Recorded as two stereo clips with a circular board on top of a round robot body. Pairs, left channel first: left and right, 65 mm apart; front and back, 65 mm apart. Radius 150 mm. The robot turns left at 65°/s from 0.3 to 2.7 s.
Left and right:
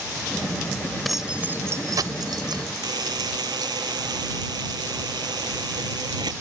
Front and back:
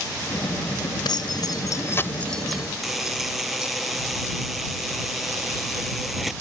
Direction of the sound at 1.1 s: 5° left.